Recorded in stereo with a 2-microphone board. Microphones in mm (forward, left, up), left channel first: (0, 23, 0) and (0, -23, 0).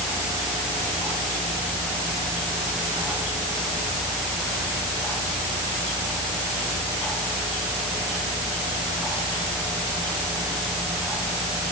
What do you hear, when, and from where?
Only background noise.